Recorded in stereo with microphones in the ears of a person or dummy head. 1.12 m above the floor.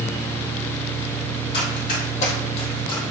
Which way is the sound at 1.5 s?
60° left (ahead or behind).